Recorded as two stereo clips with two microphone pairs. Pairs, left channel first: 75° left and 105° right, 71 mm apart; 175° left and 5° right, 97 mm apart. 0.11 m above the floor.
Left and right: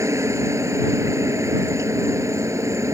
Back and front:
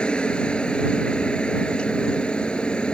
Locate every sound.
0.0 s a helicopter: 110° right